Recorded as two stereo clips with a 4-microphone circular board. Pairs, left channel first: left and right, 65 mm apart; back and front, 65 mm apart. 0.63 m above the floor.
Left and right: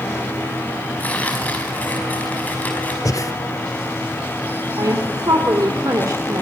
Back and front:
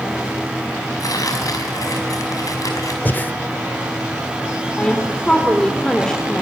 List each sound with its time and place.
1.0 s tearing paper: 155° left, 5 m
3.0 s breathing: 120° left, 1.1 m
4.8 s a woman speaking: 100° right, 2 m